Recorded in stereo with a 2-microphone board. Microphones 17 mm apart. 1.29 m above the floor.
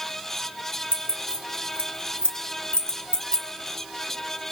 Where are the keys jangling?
65° left (ahead or behind), 2 m.